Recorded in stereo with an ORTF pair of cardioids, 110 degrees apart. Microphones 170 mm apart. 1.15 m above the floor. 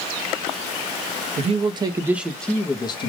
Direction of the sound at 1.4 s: 40° right.